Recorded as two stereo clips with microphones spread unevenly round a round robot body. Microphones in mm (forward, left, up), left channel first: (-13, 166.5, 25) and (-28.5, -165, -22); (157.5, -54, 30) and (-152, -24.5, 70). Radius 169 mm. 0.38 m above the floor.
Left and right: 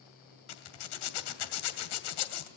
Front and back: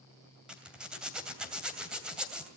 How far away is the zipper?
About 2.5 m.